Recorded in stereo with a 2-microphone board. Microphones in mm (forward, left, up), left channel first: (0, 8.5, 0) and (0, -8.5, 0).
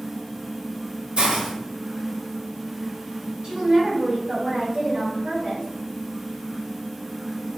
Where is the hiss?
75° right (ahead or behind), 1.2 m.